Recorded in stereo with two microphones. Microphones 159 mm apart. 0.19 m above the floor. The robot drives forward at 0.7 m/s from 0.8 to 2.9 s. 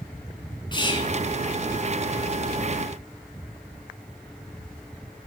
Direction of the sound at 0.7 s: 30° left (ahead or behind).